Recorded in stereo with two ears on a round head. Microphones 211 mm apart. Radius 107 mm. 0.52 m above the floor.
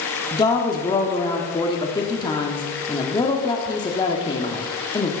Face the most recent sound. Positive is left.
turn(degrees=20)  # may be behind; listen again after turning